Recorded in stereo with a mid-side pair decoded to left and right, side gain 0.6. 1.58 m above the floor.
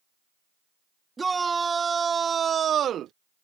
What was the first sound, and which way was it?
A shout, 20° right.